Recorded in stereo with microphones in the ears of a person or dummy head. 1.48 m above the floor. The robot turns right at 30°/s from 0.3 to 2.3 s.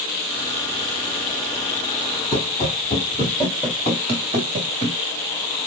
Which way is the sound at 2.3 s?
30° left (ahead or behind).